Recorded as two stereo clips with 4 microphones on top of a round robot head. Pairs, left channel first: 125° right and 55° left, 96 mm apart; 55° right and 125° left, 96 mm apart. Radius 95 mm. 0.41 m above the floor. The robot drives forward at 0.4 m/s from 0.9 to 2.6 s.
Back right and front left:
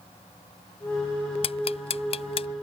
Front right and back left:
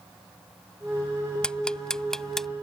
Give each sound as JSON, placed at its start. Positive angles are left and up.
{"t": 1.4, "sound": "ticking", "azimuth_deg": -135}